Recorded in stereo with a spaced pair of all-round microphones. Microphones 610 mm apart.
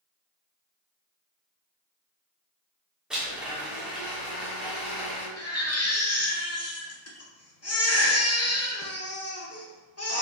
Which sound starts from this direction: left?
A baby crying, at 5.4 s.